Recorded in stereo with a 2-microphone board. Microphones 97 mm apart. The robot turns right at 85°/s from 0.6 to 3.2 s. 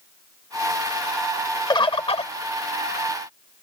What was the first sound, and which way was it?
A bird, 50° left.